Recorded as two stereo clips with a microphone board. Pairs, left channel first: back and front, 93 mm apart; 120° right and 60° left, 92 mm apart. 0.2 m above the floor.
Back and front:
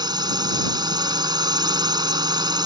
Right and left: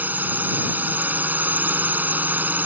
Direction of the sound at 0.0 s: 5° right.